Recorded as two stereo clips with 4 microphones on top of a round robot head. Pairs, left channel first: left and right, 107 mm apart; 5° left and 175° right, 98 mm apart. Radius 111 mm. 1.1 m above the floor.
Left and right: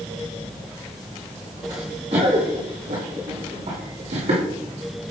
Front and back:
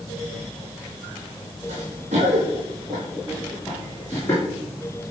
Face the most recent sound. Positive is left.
turn(degrees=-65)